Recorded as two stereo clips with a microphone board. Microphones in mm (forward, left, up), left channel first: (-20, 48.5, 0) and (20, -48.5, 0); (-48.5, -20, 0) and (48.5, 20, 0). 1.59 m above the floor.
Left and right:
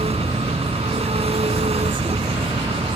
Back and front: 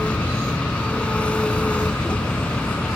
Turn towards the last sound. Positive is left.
turn(degrees=-80)